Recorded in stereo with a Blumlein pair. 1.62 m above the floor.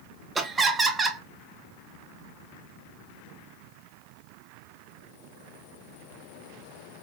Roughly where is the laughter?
Ahead.